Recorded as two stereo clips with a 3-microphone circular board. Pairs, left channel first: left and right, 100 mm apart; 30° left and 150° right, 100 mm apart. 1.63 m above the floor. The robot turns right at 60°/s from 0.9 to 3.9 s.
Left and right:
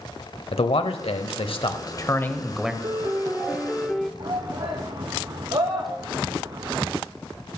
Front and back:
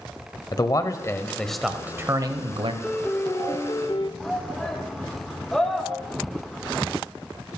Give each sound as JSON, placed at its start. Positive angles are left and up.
{"t": 0.5, "sound": "a man speaking", "azimuth_deg": 80, "distance_m": 0.8}
{"t": 2.8, "sound": "a piano", "azimuth_deg": -60, "distance_m": 0.5}
{"t": 4.2, "sound": "a shout", "azimuth_deg": -55, "distance_m": 0.7}